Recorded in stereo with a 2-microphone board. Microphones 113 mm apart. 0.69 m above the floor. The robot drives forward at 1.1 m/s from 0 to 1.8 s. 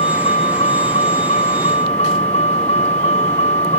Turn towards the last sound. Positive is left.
turn(degrees=75)  # may be behind; listen again after turning